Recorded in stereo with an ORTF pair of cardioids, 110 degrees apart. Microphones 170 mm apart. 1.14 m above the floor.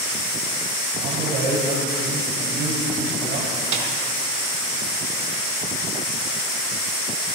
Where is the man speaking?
65° right, 7 m.